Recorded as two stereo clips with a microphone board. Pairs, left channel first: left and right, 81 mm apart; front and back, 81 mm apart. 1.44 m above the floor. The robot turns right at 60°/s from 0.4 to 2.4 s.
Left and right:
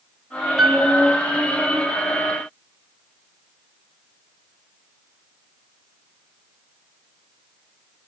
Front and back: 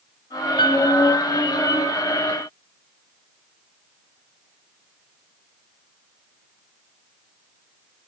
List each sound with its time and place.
0.6 s a piano: straight ahead, 6 m; by 0.9 s 15° left, 6 m